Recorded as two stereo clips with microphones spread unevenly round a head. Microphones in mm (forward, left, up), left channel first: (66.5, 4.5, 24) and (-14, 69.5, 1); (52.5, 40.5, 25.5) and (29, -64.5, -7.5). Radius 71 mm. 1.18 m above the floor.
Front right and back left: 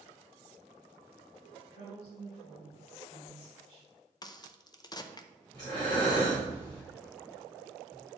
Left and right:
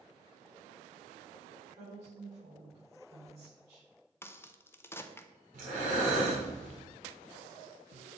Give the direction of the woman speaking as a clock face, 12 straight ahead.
2 o'clock.